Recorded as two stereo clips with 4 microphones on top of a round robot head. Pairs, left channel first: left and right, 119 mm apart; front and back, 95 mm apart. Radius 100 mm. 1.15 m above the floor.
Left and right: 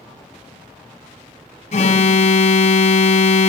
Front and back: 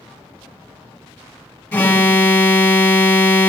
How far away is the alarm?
About 1.5 m.